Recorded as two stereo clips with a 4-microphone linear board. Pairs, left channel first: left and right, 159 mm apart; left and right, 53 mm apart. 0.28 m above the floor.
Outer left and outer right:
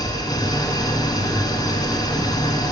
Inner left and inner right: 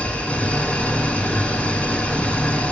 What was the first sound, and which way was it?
An engine running, 25° left (ahead or behind).